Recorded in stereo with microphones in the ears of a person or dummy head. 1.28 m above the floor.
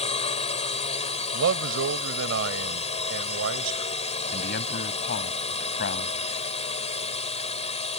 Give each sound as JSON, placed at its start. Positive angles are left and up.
{"t": 0.0, "sound": "a drone", "side_deg": 35}
{"t": 1.3, "sound": "a man speaking", "side_deg": -75}
{"t": 4.3, "sound": "a man speaking", "side_deg": 50}